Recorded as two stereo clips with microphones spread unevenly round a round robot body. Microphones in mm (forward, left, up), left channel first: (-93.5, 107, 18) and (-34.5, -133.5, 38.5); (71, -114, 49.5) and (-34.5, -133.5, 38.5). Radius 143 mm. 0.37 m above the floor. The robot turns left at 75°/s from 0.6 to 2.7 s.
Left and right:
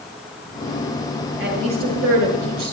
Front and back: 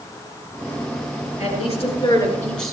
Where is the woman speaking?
15° left, 6.5 m; by 2.7 s 80° right, 6.5 m.